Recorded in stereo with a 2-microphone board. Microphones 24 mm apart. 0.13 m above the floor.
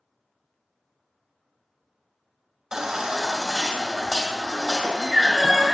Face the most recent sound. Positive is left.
turn(degrees=-30)  # may be behind; listen again after turning